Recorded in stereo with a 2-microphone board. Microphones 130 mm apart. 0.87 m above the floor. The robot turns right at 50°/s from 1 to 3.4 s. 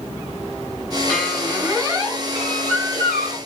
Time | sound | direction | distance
1.1 | a squeak | 165° left | 6.5 m